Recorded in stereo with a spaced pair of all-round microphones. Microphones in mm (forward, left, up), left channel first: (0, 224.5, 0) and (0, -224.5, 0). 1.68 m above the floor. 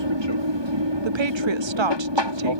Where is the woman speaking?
80° right.